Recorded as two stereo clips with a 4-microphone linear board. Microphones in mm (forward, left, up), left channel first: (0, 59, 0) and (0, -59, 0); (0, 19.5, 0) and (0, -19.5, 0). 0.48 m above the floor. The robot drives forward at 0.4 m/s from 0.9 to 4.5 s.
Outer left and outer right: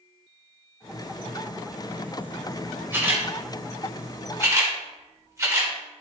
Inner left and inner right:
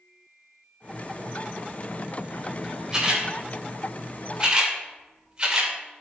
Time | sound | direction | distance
2.9 | a camera shutter | 20° right (ahead or behind) | 2 m